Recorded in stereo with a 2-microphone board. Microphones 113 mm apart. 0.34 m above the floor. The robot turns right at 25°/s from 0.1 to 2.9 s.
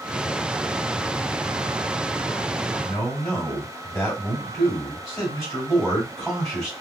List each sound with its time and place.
2.8 s a man speaking: 10° left (ahead or behind), 2 m